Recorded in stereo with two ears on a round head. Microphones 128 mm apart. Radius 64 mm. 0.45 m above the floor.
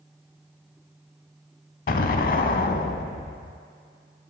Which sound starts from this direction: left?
An explosion, at 1.9 s.